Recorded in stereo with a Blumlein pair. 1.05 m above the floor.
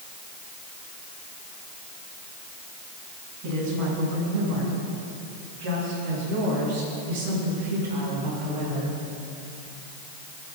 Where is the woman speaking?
40° right, 6.5 m; by 8.9 s 50° right, 11 m.